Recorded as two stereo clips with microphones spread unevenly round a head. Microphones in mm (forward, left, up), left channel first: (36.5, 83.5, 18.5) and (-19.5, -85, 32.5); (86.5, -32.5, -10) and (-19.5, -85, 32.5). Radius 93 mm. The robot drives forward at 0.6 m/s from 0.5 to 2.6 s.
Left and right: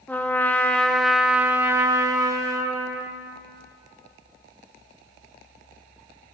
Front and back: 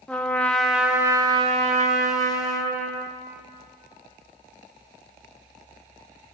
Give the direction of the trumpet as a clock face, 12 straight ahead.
12 o'clock.